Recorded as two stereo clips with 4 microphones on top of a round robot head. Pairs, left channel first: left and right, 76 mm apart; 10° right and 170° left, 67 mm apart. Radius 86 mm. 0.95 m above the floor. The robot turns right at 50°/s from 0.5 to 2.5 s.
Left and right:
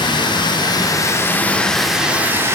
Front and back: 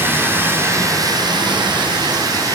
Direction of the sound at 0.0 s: 110° left.